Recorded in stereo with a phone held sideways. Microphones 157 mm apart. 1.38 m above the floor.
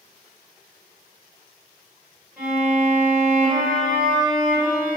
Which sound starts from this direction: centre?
A violin, at 2.4 s.